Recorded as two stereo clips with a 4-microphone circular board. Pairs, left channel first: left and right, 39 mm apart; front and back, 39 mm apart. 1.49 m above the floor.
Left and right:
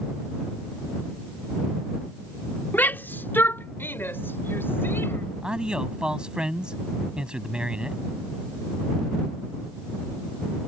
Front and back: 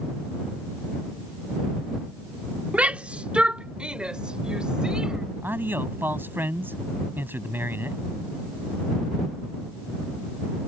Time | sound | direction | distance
2.7 | a shout | 130° left | ?
5.4 | a man speaking | 155° right | ?